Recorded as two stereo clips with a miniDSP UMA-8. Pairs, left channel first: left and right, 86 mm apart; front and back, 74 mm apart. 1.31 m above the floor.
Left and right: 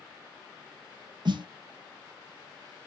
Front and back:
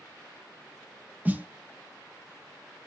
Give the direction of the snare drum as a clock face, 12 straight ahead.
4 o'clock.